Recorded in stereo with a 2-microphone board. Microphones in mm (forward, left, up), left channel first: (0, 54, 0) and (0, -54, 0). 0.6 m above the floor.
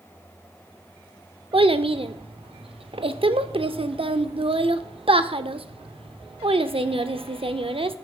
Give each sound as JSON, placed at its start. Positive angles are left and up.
{"t": 1.5, "sound": "a child speaking", "side_deg": -65, "distance_m": 0.6}